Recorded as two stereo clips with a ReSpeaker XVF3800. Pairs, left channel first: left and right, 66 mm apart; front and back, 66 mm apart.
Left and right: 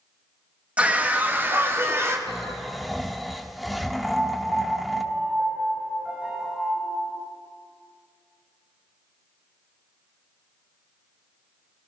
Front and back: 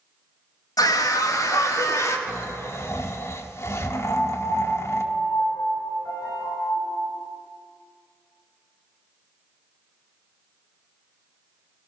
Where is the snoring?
Straight ahead, 1.4 m.